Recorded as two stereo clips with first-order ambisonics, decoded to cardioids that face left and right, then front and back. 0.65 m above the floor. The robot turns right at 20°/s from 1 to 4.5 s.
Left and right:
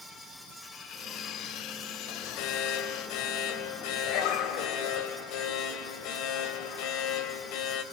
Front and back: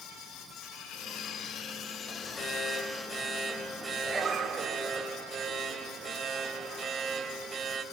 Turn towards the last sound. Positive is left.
turn(degrees=110)